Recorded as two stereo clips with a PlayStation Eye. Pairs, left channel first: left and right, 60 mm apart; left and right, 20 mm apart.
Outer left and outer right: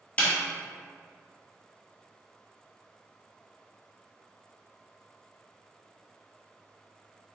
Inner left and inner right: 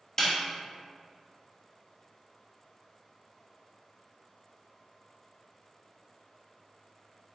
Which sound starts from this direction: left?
A snare drum, at 0.2 s.